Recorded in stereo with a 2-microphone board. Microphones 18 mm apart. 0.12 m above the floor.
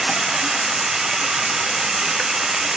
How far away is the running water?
About 1.5 m.